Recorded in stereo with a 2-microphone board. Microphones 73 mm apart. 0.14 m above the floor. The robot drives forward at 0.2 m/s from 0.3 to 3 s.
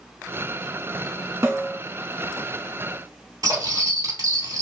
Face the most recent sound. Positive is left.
turn(degrees=-60)  # may be behind; listen again after turning